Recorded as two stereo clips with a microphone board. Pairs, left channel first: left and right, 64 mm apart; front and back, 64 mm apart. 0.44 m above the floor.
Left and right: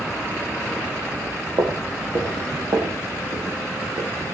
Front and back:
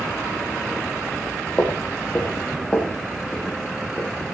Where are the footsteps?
65° right, 9.5 m; by 4.3 s 75° right, 9.5 m.